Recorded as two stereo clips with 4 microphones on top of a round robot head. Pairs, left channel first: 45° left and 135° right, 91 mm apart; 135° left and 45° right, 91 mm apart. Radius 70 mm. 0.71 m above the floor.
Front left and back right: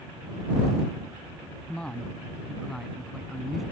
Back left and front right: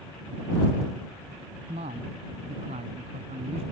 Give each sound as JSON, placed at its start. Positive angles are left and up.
{"t": 1.7, "sound": "a man speaking", "azimuth_deg": -35}